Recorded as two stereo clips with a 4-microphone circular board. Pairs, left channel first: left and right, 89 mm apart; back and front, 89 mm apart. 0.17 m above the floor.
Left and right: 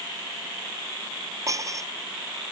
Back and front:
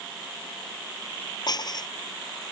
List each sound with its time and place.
1.5 s dishes clattering: 140° right